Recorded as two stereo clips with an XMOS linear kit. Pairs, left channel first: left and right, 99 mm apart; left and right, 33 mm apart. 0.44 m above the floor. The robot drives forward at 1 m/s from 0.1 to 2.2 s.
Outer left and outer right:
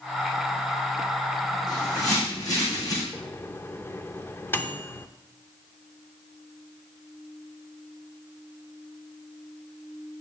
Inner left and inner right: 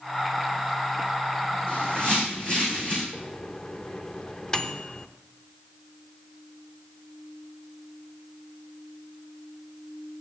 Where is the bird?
40° left (ahead or behind), 4 m; by 3.0 s 35° left (ahead or behind), 4.5 m.